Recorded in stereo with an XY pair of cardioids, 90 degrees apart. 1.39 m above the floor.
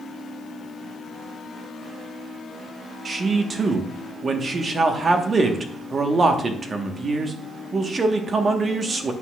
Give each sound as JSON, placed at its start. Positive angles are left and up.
{"t": 3.0, "sound": "a man speaking", "azimuth_deg": -45, "distance_m": 1.2}